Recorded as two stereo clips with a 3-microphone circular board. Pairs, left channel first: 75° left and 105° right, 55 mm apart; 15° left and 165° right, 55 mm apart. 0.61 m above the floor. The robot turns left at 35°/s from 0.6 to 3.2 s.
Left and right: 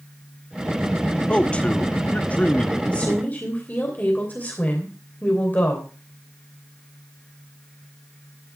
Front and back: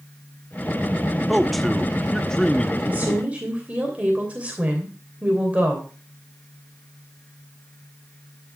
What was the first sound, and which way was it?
A man speaking, 110° left.